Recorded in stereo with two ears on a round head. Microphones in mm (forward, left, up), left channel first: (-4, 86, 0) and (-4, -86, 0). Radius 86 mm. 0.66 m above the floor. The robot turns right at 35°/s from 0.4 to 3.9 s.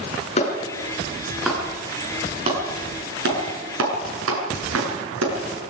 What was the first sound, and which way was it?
A clap, 35° left (ahead or behind).